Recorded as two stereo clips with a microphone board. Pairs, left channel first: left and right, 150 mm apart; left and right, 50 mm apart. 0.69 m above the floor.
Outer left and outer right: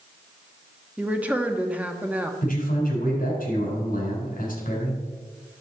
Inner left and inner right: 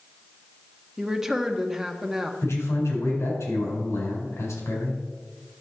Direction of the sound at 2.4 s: 70° left (ahead or behind).